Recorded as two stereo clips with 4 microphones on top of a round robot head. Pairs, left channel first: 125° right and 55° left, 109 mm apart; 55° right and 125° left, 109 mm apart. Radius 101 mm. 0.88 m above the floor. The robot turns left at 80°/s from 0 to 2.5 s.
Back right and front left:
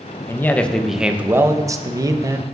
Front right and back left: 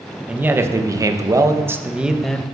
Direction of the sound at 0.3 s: 170° right.